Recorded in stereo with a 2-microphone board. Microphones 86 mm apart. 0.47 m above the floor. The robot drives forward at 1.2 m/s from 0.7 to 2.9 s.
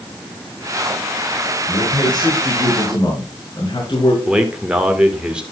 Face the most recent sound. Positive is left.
turn(degrees=-10)  # may be behind; listen again after turning